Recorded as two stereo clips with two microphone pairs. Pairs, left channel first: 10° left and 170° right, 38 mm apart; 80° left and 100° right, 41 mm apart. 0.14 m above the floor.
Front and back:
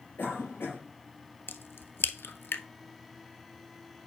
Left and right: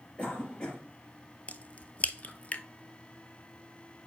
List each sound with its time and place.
0.2 s a cough: 15° left, 4 m
1.5 s a crack: 25° left, 0.6 m